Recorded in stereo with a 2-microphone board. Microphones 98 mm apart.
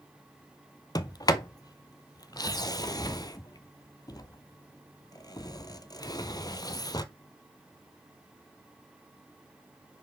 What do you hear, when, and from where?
0.9 s a sliding door: 45° left (ahead or behind), 0.5 m